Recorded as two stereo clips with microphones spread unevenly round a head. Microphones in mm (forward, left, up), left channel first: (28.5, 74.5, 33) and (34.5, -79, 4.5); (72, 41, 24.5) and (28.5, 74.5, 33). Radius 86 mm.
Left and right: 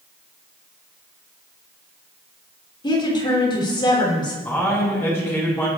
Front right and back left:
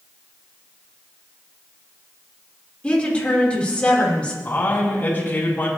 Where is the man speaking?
15° left, 8 m.